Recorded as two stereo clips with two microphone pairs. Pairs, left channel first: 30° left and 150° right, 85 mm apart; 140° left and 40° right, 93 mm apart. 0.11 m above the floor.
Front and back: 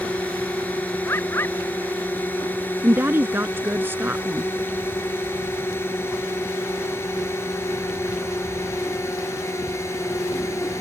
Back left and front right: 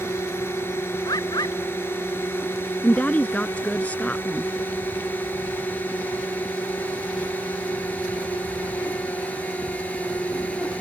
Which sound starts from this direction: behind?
A woman speaking, at 2.8 s.